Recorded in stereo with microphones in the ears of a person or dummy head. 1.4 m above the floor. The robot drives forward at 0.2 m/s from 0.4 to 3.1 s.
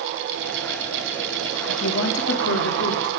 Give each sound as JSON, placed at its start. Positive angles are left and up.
{"t": 1.7, "sound": "a woman speaking", "side_deg": 65, "distance_m": 0.8}